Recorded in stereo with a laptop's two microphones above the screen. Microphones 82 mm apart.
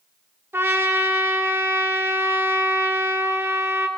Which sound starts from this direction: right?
A trumpet, at 0.5 s.